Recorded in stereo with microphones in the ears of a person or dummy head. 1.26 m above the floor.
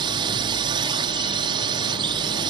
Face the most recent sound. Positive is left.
turn(degrees=-25)  # may be behind; listen again after turning